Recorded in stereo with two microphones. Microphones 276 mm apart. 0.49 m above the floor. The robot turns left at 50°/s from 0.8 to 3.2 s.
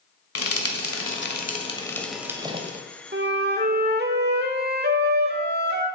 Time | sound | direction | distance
0.3 | frying | 60° left (ahead or behind) | 1.4 m
3.1 | a flute | 40° right (ahead or behind) | 1.1 m